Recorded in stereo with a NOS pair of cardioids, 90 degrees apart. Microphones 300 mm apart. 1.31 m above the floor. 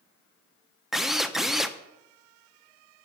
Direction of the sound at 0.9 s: Straight ahead.